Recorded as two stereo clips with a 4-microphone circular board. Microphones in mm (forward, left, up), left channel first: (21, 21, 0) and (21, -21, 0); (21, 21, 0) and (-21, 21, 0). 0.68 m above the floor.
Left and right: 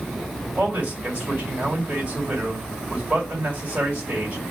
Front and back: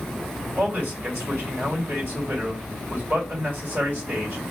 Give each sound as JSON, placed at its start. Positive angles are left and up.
{"t": 0.6, "sound": "a man speaking", "azimuth_deg": -145, "distance_m": 2.0}